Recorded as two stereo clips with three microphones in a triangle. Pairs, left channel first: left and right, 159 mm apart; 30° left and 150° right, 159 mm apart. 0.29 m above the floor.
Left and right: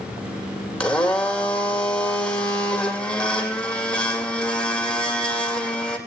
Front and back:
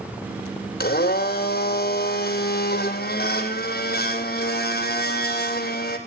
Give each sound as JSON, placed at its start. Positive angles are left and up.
{"t": 0.8, "sound": "a blender", "azimuth_deg": 5, "distance_m": 2.0}